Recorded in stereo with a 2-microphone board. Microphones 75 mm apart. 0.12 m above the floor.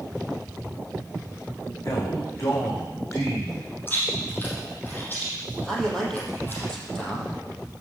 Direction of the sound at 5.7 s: 10° left (ahead or behind).